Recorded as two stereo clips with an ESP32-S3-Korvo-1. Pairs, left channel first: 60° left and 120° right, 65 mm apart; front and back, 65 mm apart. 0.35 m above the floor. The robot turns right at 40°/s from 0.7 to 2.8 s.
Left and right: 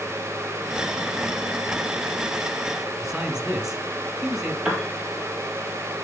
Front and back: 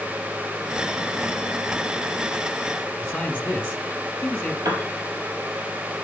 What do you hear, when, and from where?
3.0 s a man speaking: 60° right, 1.2 m
4.7 s a piano: 165° left, 3 m